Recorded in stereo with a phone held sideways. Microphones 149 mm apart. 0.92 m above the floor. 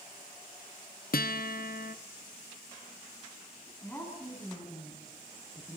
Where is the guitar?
80° left, 0.7 m.